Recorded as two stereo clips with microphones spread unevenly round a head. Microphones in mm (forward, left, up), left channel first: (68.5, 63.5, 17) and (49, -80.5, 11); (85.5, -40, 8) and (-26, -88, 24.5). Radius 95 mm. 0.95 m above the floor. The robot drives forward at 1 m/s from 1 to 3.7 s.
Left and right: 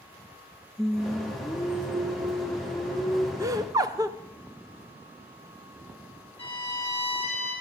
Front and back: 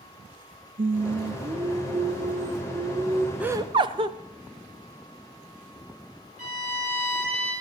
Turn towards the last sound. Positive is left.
turn(degrees=-130)